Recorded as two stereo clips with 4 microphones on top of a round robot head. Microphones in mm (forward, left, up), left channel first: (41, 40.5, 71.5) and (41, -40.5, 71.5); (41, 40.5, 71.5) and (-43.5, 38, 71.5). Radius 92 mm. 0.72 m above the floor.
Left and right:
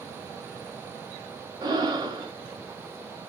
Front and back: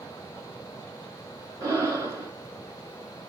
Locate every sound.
1.6 s breathing: 125° right, 1.3 m